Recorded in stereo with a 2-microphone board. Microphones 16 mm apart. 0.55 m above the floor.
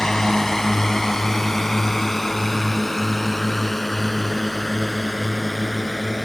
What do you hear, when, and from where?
0.0 s a drone: 35° left (ahead or behind); by 6.2 s 10° left (ahead or behind)